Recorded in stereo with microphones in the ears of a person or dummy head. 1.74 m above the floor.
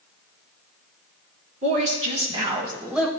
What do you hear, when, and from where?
1.6 s a woman speaking: 40° right (ahead or behind), 3 m; by 3.1 s 5° left (ahead or behind), 1.1 m